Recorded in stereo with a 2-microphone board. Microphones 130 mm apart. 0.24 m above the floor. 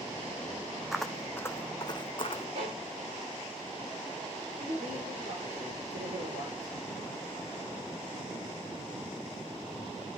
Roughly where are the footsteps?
Centre.